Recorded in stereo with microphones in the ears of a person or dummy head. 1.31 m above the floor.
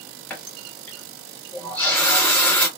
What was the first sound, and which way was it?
A running tap, 10° left (ahead or behind).